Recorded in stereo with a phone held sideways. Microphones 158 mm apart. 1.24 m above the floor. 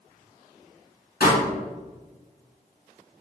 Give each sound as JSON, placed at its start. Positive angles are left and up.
{"t": 1.2, "sound": "a pop", "side_deg": 70, "distance_m": 1.7}